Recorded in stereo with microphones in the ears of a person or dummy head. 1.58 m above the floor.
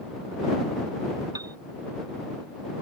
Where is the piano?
15° right (ahead or behind).